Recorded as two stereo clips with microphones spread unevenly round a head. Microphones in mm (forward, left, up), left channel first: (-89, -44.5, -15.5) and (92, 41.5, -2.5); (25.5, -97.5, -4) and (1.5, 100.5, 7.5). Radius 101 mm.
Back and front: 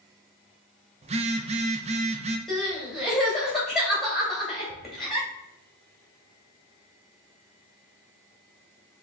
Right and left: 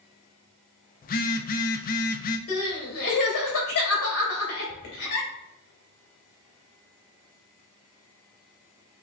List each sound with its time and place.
1.0 s a phone buzzing: 35° right, 0.5 m
2.5 s crying: 65° right, 2 m